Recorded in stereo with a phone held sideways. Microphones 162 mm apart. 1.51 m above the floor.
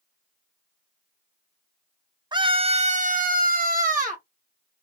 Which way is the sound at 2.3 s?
30° right (ahead or behind).